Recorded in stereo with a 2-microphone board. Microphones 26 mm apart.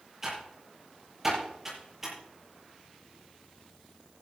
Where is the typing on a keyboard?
15° right (ahead or behind), 8 m.